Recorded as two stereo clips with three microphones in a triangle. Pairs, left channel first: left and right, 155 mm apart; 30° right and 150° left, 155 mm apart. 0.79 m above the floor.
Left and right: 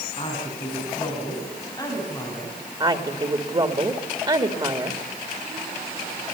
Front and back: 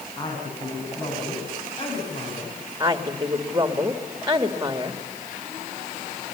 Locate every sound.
0.2 s a woman speaking: 35° left, 7 m; by 2.6 s 15° left, 6 m
2.8 s a woman speaking: 140° right, 1.8 m